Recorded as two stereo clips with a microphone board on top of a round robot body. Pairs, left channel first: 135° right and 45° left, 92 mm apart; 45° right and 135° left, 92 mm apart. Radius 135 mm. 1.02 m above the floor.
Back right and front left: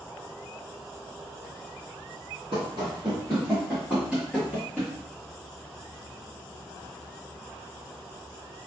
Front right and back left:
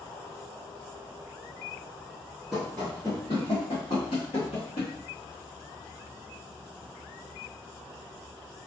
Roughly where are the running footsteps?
Ahead left.